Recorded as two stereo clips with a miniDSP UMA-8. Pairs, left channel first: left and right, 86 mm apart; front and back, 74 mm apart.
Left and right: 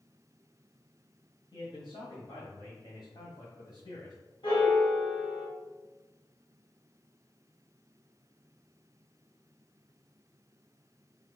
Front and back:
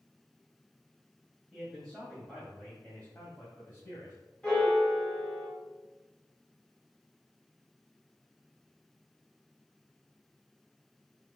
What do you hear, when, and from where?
1.5 s a man speaking: 95° left, 2.0 m; by 4.2 s 45° left, 2.5 m
4.4 s a piano: 80° left, 3 m